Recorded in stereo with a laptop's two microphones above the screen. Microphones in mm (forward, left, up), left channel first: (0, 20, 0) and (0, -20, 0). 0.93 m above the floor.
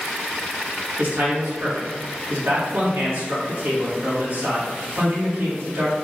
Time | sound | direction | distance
1.0 | a man speaking | 60° right (ahead or behind) | 1.5 m